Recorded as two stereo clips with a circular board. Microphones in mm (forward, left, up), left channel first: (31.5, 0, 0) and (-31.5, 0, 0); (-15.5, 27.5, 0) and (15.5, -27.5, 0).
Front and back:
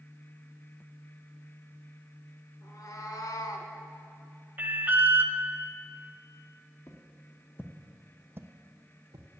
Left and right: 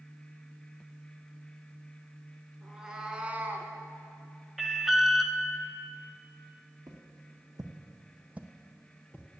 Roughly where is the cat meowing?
Ahead.